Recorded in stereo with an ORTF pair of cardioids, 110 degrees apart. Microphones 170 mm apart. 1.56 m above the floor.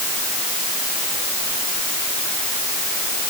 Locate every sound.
Only background noise.